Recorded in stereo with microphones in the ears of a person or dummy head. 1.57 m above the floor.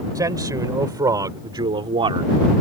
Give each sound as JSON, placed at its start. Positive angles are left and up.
{"t": 0.1, "sound": "a man speaking", "side_deg": -20}